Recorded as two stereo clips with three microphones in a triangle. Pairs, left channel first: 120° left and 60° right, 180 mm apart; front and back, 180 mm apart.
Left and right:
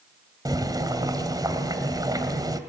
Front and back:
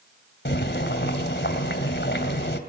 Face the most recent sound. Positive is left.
turn(degrees=10)